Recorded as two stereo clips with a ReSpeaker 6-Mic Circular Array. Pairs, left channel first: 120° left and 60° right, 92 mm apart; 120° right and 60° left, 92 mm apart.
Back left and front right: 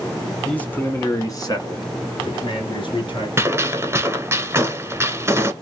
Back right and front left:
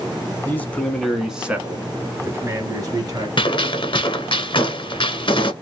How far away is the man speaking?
About 1.2 m.